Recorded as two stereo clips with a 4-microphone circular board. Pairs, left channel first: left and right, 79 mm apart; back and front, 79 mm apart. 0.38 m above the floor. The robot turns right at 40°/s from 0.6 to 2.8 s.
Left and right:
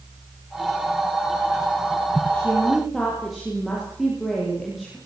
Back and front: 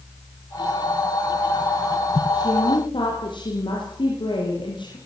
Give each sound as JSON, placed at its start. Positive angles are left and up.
{"t": 2.3, "sound": "a woman speaking", "azimuth_deg": 160, "distance_m": 8.0}